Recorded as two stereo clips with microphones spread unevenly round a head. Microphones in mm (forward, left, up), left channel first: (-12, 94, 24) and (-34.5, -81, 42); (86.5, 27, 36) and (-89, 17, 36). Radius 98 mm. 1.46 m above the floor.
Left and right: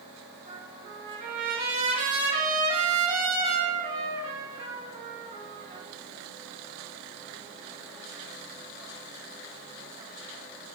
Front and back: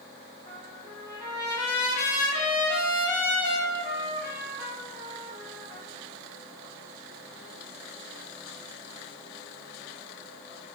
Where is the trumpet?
45° right, 1.0 m.